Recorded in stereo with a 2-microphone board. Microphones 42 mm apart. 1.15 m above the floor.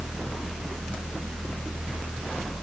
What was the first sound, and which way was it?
Only background noise.